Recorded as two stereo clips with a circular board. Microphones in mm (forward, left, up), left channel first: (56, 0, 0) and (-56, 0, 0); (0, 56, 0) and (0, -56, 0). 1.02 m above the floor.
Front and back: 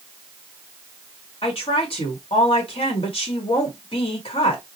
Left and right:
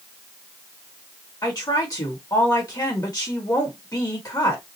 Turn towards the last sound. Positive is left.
turn(degrees=35)